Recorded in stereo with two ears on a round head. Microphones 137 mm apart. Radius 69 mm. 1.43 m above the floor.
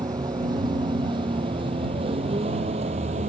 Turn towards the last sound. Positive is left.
turn(degrees=-45)  # may be behind; listen again after turning